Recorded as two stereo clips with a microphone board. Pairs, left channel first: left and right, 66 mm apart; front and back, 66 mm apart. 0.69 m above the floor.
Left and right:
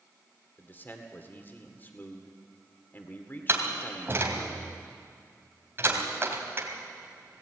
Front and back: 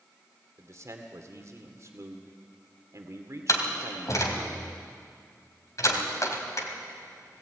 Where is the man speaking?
145° left, 2.0 m.